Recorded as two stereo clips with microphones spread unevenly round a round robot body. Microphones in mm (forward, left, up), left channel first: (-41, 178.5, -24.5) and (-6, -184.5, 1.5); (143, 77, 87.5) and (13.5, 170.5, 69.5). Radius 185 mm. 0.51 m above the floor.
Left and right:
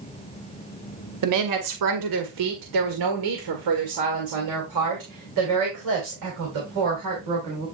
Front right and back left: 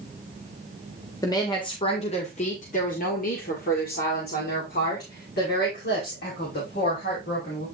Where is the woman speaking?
105° right, 1.4 m; by 7.7 s 35° right, 3.5 m.